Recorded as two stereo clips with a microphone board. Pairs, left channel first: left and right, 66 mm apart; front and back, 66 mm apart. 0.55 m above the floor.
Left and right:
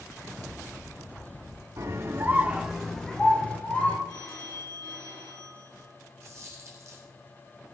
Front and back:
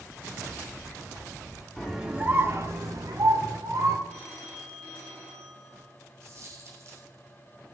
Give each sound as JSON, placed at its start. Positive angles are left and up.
{"t": 1.8, "sound": "a scream", "azimuth_deg": -85, "distance_m": 1.0}
{"t": 4.1, "sound": "a phone ringing", "azimuth_deg": 70, "distance_m": 5.0}
{"t": 6.2, "sound": "a dropped coin", "azimuth_deg": -135, "distance_m": 3.0}